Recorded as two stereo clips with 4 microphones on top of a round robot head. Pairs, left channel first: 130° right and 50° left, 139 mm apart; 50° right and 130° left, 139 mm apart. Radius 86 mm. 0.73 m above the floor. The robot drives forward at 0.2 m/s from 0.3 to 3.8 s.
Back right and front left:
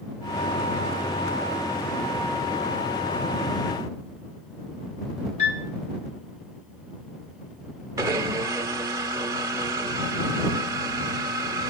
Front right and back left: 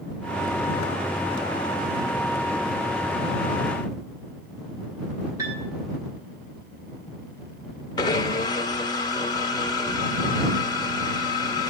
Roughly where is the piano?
Behind.